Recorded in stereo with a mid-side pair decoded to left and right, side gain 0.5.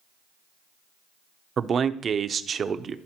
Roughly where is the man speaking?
Ahead right.